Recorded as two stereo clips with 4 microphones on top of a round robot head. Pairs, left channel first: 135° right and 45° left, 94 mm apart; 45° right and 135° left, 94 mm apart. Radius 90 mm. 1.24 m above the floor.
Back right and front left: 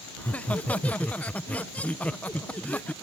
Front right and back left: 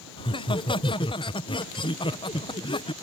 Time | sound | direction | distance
0.2 | laughter | 60° right | ?